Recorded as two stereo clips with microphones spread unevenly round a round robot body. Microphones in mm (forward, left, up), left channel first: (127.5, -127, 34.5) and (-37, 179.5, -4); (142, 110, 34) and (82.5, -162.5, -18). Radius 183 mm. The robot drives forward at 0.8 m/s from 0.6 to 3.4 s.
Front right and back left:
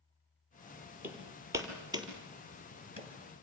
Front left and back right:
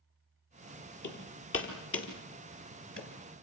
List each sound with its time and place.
1.0 s hammering: 35° left, 5.5 m; by 3.1 s 45° left, 4 m